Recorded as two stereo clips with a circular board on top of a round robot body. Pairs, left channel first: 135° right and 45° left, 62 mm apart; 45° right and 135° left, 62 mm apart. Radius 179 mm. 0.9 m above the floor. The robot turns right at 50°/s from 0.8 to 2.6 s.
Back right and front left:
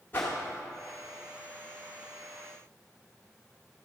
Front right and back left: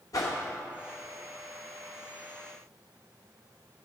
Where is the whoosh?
75° right, 0.7 m.